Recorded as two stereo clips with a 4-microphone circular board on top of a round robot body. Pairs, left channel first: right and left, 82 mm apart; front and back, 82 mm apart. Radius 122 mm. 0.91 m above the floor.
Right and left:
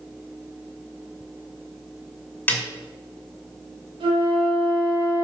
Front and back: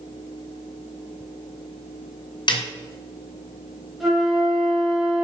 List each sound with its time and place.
2.5 s a snare drum: 20° right, 2.5 m
4.0 s a flute: 90° left, 3 m